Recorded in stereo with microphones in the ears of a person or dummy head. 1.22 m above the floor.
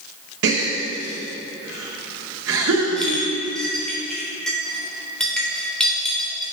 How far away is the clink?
About 3 m.